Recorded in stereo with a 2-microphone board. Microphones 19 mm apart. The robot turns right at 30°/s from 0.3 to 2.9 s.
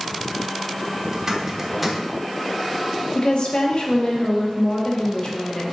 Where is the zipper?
30° right (ahead or behind), 1.1 m; by 2.0 s 5° right (ahead or behind), 1.1 m.